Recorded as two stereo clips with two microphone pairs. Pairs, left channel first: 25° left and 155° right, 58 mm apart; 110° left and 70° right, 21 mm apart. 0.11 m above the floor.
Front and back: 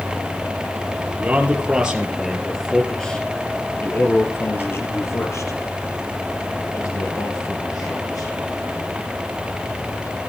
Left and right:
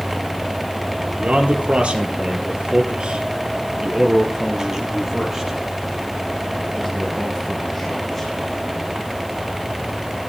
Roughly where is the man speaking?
Right.